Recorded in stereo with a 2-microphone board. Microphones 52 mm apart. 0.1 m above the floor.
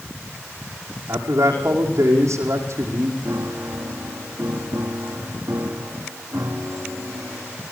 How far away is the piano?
About 3 m.